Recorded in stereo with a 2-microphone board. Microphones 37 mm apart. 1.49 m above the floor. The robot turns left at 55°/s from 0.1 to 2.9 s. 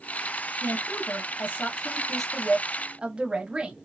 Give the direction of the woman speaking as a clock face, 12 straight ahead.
9 o'clock.